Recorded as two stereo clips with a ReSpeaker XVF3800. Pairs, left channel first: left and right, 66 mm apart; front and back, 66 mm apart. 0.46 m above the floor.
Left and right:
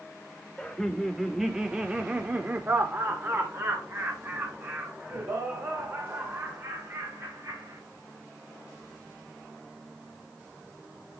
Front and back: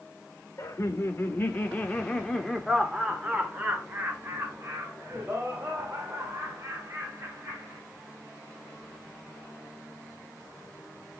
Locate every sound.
0.6 s laughter: 15° left, 1.6 m; by 7.8 s 130° right, 4 m